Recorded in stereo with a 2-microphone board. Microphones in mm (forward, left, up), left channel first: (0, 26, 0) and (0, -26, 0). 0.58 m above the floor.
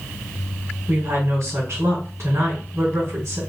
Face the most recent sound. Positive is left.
turn(degrees=-55)  # may be behind; listen again after turning